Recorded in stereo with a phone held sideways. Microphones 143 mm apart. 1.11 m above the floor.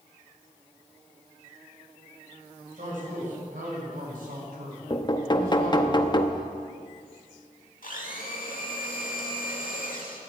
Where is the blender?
75° left (ahead or behind), 2.5 m.